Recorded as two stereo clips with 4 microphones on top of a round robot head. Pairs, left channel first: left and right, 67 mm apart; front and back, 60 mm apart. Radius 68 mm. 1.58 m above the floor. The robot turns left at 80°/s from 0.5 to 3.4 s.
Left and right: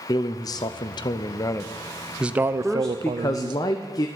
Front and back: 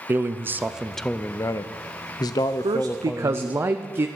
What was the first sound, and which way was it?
A man speaking, 125° left.